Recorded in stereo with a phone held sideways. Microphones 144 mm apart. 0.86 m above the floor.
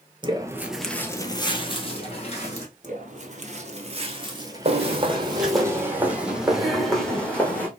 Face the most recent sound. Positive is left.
turn(degrees=10)  # may be behind; listen again after turning